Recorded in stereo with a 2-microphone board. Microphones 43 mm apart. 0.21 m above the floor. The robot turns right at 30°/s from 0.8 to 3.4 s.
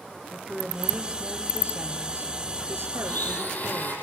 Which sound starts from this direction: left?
A blender, at 3.0 s.